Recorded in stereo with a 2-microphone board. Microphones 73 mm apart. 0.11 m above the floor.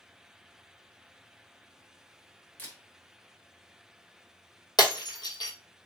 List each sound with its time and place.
2.6 s a camera shutter: 25° left (ahead or behind), 1.7 m
4.8 s breaking glass: 75° left (ahead or behind), 1.1 m